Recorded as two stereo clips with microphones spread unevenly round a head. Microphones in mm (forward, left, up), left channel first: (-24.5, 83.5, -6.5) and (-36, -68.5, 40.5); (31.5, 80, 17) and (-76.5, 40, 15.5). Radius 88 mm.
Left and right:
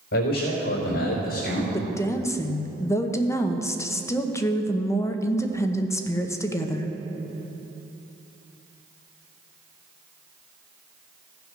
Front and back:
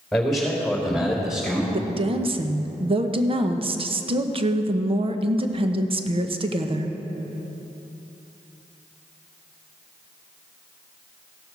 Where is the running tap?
I don't hear a running tap.